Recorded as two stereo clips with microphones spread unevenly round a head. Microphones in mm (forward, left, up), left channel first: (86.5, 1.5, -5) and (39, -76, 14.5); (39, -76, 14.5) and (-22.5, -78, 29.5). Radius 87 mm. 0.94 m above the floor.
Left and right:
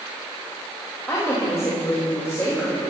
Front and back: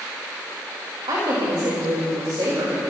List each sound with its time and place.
1.1 s a woman speaking: 135° left, 5 m